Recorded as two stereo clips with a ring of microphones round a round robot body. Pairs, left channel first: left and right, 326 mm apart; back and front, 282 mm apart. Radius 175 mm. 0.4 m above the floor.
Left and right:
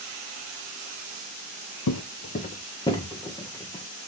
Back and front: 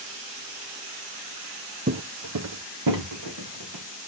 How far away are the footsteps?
About 0.7 m.